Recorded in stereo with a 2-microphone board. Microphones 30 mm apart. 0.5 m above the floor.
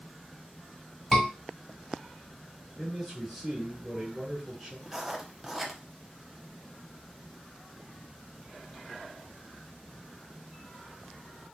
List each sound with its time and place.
1.1 s a scream: 5° right (ahead or behind), 1.4 m
2.8 s a man speaking: 10° right (ahead or behind), 1.4 m
4.9 s writing: 10° right (ahead or behind), 0.6 m